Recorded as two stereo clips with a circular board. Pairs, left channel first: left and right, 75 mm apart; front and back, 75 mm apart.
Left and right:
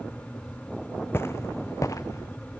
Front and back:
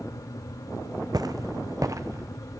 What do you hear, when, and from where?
1.1 s footsteps: 150° left, 0.7 m; by 2.3 s 135° left, 1.3 m